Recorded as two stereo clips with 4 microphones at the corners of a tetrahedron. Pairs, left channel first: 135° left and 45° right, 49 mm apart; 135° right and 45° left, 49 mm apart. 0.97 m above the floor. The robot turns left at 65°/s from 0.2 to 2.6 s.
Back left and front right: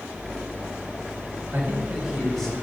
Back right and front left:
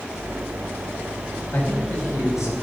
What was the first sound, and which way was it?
A man speaking, 85° right.